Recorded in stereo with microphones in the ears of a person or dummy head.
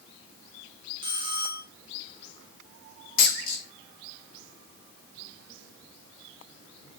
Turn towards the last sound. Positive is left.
turn(degrees=50)  # may be behind; listen again after turning